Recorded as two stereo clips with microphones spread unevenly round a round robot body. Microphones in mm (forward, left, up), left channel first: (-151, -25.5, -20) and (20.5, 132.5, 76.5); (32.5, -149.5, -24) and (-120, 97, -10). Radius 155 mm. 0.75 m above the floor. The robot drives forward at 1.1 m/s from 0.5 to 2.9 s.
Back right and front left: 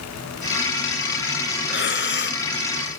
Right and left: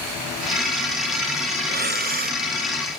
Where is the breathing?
Straight behind.